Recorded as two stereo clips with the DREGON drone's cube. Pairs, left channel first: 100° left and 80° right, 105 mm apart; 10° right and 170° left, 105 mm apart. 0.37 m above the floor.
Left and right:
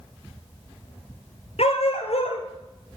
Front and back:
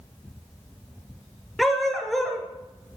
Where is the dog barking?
80° left, 2.5 m.